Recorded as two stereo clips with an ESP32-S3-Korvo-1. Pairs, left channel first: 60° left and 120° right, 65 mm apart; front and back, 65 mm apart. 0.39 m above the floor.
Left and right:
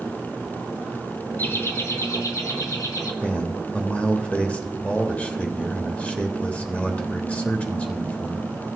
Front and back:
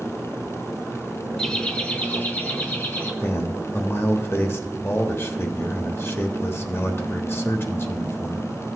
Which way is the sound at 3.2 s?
5° left.